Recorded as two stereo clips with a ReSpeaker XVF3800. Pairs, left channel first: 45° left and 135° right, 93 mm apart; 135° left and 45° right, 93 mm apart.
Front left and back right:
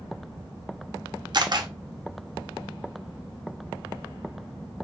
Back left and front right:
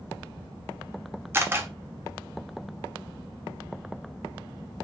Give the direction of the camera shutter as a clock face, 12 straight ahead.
4 o'clock.